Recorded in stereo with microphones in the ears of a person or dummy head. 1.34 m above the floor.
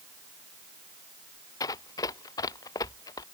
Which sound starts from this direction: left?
Running footsteps, at 1.6 s.